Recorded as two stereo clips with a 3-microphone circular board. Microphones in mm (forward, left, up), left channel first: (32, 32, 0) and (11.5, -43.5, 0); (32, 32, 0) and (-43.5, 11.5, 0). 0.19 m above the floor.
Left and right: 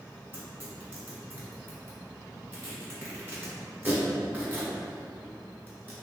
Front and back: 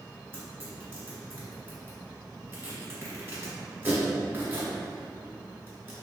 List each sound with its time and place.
0.3 s tearing paper: 140° right, 1.5 m